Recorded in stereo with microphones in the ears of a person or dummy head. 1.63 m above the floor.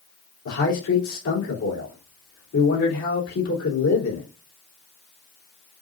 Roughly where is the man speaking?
Left.